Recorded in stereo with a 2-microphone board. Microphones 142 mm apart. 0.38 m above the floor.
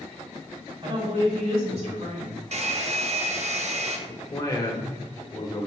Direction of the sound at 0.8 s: 35° right (ahead or behind).